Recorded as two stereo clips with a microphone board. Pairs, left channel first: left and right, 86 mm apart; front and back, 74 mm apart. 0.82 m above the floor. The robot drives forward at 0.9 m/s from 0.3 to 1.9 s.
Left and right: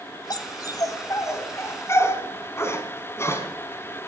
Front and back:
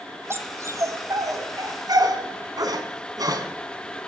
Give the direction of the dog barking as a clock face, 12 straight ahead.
8 o'clock.